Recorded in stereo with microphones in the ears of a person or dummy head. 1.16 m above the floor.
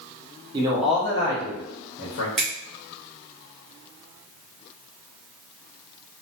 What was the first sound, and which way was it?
A man speaking, 25° right (ahead or behind).